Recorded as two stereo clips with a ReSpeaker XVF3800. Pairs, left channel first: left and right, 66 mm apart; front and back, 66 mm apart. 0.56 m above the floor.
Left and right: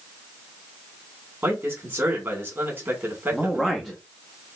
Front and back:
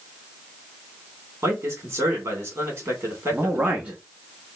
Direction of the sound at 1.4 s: 135° right.